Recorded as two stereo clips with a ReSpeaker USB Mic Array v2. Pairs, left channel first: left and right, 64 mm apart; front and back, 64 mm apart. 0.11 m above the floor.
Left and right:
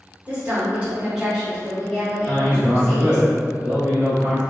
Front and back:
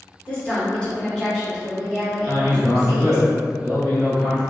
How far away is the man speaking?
About 1.7 m.